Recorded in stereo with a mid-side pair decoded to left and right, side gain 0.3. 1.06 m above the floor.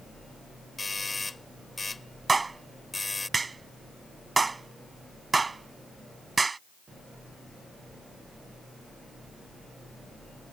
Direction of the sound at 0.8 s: 30° left.